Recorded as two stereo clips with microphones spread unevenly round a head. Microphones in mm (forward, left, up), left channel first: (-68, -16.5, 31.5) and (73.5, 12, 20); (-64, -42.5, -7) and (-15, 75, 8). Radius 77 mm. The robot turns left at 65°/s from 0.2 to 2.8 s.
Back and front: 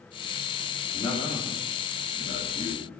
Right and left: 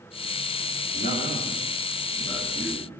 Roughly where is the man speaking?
Behind right.